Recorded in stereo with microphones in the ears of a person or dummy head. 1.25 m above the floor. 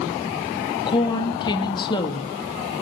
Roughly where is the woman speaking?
Left.